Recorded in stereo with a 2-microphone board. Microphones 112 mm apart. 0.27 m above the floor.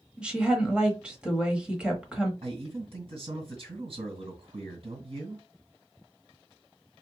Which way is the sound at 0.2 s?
10° right (ahead or behind).